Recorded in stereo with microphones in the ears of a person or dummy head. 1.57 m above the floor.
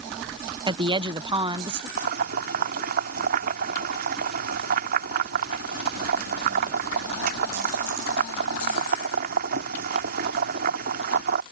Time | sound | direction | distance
0.7 | a woman speaking | 20° right (ahead or behind) | ?
2.0 | boiling | 55° right (ahead or behind) | ?